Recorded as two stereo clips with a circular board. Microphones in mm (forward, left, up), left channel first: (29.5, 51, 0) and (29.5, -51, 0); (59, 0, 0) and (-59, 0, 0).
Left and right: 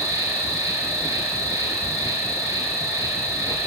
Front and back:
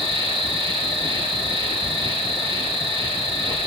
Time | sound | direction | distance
0.0 | an insect | 150° right | 4 m